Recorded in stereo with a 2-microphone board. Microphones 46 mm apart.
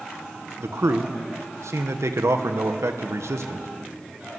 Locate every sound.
0.6 s a man speaking: 80° right, 1.5 m